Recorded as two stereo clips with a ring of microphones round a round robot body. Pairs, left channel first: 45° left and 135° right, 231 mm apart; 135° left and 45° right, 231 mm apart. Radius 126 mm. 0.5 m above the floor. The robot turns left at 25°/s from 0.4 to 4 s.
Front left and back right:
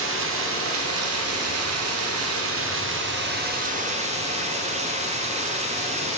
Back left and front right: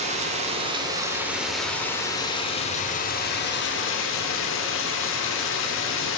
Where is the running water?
105° right, 0.8 m; by 6.2 s 165° left, 0.8 m.